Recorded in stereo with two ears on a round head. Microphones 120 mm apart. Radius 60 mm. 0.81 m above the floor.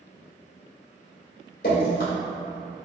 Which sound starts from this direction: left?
Dripping, at 1.6 s.